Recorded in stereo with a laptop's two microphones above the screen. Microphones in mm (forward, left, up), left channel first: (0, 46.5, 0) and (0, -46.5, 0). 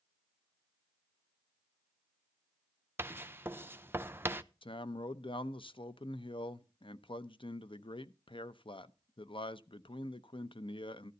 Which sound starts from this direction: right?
Writing, at 3.0 s.